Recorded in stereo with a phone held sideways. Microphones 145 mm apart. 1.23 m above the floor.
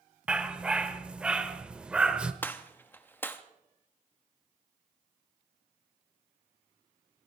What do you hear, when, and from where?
0.3 s a dog barking: 5° right (ahead or behind), 1.0 m
2.4 s a gunshot: 15° left (ahead or behind), 1.0 m